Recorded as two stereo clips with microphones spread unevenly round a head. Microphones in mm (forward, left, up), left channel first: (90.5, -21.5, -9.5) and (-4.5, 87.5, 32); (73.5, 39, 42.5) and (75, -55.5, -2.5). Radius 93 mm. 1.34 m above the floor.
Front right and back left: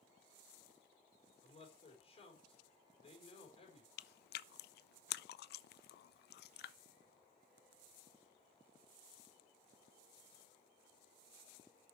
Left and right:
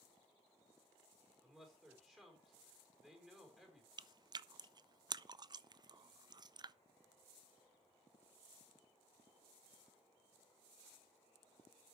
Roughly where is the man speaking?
Ahead.